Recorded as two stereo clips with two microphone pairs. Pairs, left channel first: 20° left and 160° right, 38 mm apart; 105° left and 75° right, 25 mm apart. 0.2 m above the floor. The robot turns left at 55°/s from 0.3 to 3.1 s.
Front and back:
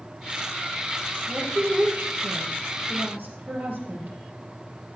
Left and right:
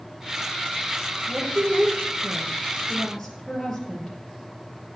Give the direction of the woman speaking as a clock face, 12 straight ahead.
3 o'clock.